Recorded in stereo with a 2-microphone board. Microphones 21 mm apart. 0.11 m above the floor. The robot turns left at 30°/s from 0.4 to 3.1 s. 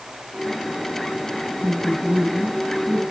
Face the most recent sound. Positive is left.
turn(degrees=-165)